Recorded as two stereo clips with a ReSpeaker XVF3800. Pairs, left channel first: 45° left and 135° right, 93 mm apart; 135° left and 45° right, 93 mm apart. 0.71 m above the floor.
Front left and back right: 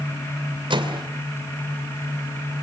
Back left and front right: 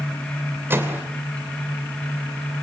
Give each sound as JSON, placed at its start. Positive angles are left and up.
{"t": 0.7, "sound": "a microwave", "azimuth_deg": -110, "distance_m": 2.5}